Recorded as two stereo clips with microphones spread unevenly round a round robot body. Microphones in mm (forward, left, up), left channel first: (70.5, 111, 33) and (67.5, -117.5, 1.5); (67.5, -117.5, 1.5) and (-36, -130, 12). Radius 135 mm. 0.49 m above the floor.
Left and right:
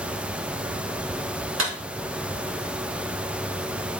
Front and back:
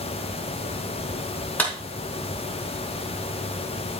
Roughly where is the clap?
Ahead right.